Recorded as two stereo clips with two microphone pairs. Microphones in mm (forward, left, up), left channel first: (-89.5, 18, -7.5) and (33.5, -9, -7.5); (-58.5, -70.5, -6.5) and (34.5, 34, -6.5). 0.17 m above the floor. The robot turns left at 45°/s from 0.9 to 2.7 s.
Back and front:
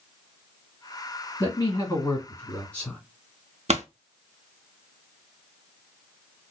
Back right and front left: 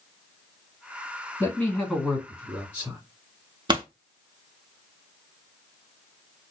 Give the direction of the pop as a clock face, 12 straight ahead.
12 o'clock.